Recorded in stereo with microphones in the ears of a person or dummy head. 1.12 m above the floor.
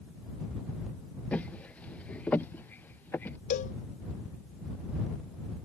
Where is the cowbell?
45° left (ahead or behind).